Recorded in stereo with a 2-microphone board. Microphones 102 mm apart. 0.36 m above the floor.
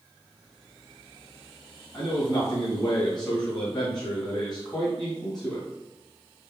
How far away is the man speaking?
About 2.5 m.